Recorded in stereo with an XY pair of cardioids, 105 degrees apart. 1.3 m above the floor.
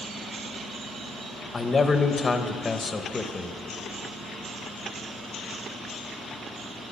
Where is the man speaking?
30° left, 0.9 m.